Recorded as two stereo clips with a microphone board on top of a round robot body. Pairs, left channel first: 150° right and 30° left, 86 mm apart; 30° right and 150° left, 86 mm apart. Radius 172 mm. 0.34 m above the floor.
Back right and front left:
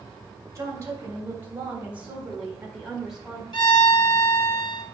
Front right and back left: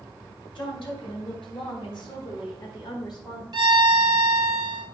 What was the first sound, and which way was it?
A woman speaking, 20° right.